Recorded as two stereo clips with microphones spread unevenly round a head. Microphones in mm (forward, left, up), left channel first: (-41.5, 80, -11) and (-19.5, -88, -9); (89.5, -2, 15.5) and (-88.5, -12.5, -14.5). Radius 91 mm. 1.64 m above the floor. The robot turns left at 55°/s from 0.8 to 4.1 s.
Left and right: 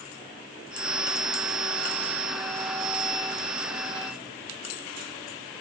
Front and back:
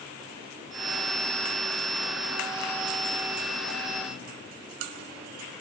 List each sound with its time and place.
Only background noise.